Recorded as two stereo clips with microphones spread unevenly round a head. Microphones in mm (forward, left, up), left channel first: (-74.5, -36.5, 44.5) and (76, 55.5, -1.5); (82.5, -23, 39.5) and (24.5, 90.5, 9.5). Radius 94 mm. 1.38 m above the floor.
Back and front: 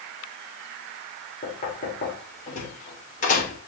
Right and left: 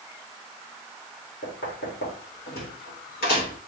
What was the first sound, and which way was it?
Knocking, 100° right.